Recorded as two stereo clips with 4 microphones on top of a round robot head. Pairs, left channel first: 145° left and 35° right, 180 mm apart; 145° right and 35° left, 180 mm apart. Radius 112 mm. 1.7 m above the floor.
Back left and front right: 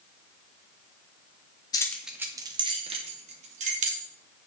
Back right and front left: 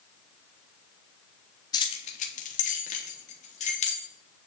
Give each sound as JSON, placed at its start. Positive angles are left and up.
{"t": 1.7, "sound": "keys jangling", "azimuth_deg": 180, "distance_m": 0.5}